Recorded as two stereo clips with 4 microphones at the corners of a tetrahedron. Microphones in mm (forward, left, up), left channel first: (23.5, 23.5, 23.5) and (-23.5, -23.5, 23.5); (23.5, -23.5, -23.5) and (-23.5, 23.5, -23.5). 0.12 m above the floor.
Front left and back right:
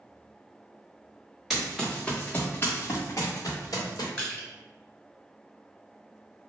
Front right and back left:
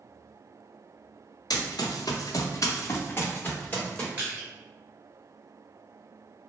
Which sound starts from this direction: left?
Crushing, at 4.2 s.